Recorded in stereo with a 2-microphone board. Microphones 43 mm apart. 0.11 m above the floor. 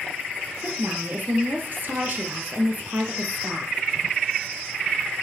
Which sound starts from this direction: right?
A woman speaking, at 0.6 s.